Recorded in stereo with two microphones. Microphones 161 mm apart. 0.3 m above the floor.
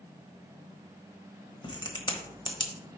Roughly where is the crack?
Left.